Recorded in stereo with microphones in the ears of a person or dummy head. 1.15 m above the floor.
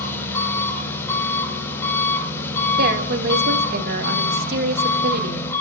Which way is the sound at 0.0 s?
10° left (ahead or behind).